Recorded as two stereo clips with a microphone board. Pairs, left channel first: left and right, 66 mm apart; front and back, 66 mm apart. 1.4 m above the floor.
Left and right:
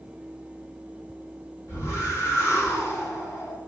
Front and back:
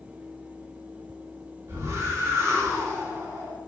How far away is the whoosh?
About 3 m.